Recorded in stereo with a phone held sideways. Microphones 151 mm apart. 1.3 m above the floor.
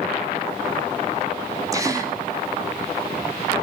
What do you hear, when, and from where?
1.7 s a gasp: 20° right (ahead or behind), 3.5 m